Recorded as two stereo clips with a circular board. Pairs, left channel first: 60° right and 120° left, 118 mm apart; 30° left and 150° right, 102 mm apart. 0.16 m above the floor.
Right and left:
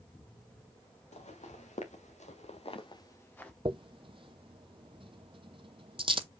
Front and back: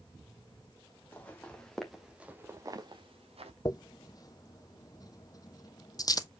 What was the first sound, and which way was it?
Footsteps, 45° right.